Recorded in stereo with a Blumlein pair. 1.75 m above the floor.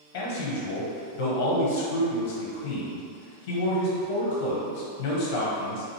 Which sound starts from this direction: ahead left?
A man speaking, at 0.1 s.